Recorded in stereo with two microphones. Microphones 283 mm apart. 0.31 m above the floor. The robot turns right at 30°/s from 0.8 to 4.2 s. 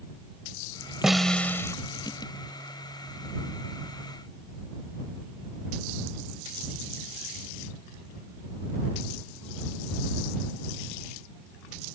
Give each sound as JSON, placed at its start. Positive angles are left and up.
{"t": 1.0, "sound": "a snare drum", "side_deg": 0}